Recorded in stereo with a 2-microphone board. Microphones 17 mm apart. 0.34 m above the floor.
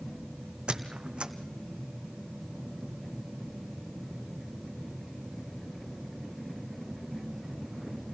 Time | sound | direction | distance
0.7 | a squeak | 80° right | 1.4 m